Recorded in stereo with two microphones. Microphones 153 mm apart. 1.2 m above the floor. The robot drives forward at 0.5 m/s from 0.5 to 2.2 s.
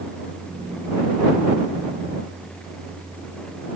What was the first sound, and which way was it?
Only background noise.